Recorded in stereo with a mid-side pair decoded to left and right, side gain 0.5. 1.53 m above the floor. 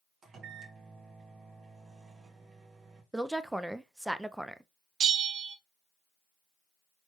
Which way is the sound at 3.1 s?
5° right.